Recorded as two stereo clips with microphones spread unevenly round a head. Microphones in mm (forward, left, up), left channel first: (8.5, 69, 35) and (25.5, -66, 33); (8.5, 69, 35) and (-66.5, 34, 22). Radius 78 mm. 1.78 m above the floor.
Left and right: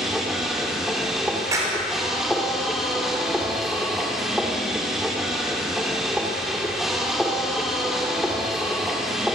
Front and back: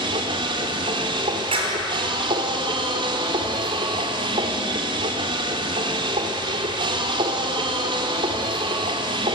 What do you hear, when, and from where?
0.0 s a machine running: 170° right, 2.5 m
1.5 s a clap: 155° right, 4.5 m